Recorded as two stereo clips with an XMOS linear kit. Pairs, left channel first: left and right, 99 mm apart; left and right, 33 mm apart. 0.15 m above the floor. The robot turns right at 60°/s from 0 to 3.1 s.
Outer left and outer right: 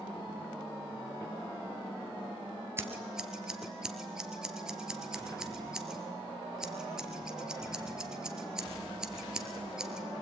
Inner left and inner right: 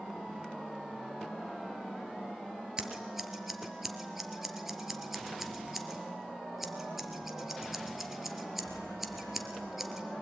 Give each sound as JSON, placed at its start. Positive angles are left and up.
{"t": 2.8, "sound": "scissors", "side_deg": -25, "distance_m": 1.8}